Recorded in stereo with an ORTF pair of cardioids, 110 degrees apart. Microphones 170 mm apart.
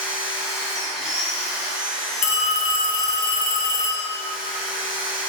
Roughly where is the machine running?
Ahead.